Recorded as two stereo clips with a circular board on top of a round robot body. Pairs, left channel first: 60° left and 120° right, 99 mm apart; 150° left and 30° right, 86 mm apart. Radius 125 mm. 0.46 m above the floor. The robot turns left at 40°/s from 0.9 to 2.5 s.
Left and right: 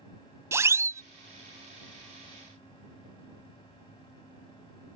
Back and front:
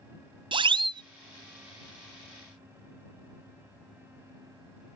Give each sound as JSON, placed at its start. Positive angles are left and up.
{"t": 0.5, "sound": "a siren", "azimuth_deg": -55}